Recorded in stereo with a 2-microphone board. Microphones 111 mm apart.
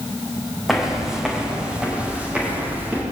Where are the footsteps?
Centre (ahead or behind), 7 m; by 3.0 s 15° right (ahead or behind), 9.5 m.